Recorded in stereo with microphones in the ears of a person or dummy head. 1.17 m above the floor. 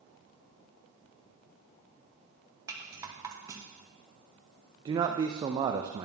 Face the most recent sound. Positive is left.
turn(degrees=-25)  # may be behind; listen again after turning